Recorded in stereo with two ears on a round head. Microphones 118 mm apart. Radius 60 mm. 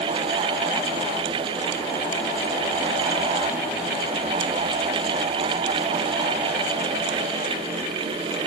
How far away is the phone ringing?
No phone ringing in this recording.